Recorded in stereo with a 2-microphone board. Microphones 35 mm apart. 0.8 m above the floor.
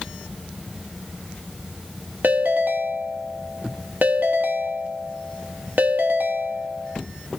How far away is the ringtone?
About 0.8 m.